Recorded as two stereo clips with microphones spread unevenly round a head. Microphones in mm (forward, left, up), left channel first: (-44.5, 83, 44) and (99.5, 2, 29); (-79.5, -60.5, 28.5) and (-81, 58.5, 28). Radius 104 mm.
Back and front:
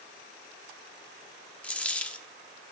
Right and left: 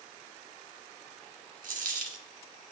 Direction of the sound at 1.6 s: 70° left.